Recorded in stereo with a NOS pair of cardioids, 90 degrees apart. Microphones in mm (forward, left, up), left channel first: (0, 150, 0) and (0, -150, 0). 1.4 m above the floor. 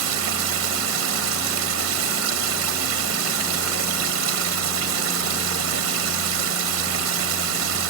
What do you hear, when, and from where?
0.0 s running water: 60° right